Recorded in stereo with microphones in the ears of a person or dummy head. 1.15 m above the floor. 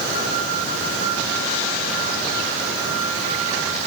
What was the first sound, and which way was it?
Only background noise.